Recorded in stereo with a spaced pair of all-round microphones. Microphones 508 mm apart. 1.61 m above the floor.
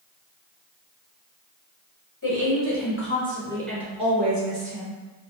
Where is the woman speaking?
40° left (ahead or behind), 1.2 m; by 5.0 s 50° right (ahead or behind), 0.9 m.